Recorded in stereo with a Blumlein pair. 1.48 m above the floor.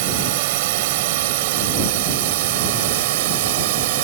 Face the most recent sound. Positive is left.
turn(degrees=-50)